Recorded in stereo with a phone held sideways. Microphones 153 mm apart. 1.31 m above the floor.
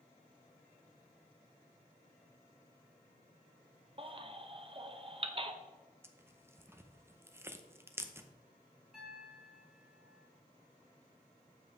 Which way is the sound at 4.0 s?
35° right (ahead or behind).